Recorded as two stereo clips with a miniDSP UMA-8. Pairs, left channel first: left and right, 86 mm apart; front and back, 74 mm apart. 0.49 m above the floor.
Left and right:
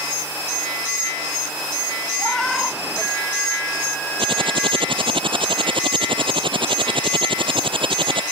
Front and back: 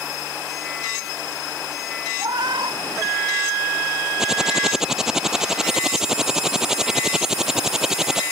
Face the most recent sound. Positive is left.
turn(degrees=-95)